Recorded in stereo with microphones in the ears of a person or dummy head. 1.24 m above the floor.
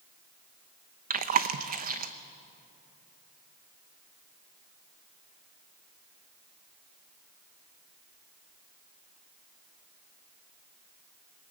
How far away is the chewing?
About 0.8 m.